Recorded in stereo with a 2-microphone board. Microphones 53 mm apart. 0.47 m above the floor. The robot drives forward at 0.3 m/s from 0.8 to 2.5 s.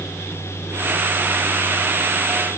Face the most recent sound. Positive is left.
No sound to turn to.